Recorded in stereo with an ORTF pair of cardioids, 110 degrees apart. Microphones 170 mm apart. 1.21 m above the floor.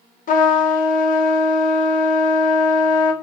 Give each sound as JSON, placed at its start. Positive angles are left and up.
{"t": 0.3, "sound": "a trumpet", "azimuth_deg": 55, "distance_m": 0.9}